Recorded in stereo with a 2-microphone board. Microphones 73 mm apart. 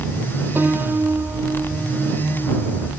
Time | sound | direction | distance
0.6 | a piano | 25° right (ahead or behind) | ?